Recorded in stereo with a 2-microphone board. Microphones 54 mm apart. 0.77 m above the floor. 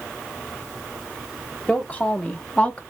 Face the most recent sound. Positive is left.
turn(degrees=25)  # may be behind; listen again after turning